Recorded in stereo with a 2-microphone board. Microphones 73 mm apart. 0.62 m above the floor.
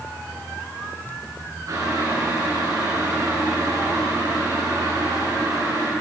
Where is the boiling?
55° right (ahead or behind), 8 m.